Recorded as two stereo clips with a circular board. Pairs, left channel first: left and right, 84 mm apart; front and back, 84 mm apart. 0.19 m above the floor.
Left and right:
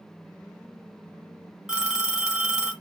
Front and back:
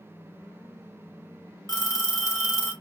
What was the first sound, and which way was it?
A phone ringing, 15° right.